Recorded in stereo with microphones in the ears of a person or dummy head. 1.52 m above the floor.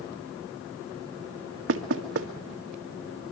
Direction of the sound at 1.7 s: 70° right (ahead or behind).